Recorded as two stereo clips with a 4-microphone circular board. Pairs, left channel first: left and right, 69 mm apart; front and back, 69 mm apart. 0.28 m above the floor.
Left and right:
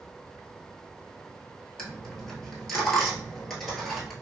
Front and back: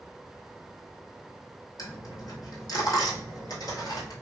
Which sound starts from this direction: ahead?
A dropped coin, at 1.8 s.